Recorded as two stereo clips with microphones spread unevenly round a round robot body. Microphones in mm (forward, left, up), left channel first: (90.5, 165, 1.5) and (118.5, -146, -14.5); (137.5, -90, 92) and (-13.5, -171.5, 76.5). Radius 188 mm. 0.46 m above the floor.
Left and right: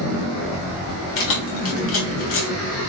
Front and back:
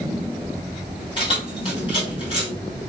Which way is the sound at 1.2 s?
90° left.